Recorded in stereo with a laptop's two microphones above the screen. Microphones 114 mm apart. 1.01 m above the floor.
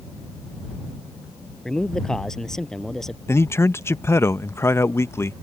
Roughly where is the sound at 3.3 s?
Left.